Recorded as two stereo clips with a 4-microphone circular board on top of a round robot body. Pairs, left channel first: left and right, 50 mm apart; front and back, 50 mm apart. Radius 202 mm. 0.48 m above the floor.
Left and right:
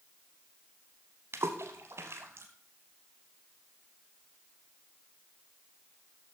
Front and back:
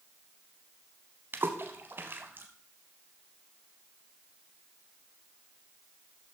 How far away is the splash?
About 0.7 m.